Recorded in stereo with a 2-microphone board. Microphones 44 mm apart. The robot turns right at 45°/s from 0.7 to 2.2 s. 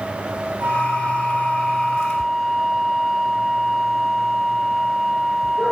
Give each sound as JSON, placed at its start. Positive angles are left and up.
{"t": 0.6, "sound": "a flute", "azimuth_deg": -70, "distance_m": 2.0}